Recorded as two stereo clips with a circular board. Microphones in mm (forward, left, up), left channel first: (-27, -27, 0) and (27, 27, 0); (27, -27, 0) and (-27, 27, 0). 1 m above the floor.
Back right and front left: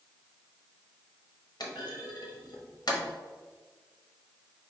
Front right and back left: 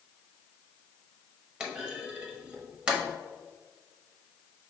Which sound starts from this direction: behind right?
A clunk, at 1.6 s.